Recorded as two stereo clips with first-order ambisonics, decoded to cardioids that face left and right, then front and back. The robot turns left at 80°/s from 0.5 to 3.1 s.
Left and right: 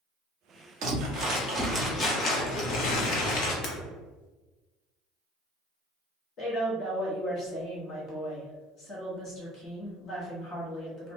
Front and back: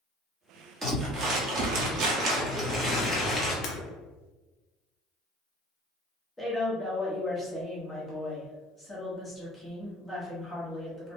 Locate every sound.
0.8 s crumpling: 100° right, 0.9 m; by 3.5 s 75° left, 0.9 m
3.6 s breaking glass: 45° left, 0.7 m
6.4 s a woman speaking: 85° left, 0.9 m